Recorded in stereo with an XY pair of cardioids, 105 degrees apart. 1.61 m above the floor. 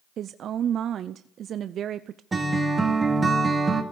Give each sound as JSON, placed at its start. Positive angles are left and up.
{"t": 0.2, "sound": "a woman speaking", "azimuth_deg": -60, "distance_m": 0.5}
{"t": 2.3, "sound": "a guitar", "azimuth_deg": -30, "distance_m": 2.5}